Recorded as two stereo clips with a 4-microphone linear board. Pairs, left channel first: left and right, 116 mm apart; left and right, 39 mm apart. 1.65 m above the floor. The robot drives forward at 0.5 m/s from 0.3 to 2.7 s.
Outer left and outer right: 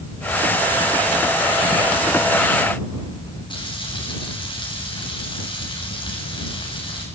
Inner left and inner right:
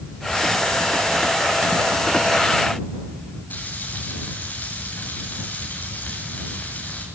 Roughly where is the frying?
Left.